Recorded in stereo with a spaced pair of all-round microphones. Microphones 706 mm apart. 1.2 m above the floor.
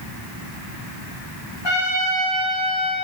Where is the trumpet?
35° left (ahead or behind), 1.9 m.